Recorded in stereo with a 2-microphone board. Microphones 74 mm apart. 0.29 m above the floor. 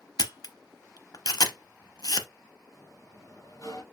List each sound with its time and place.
0.2 s a camera shutter: 60° left (ahead or behind), 0.6 m
2.7 s a sliding door: 50° left (ahead or behind), 2.5 m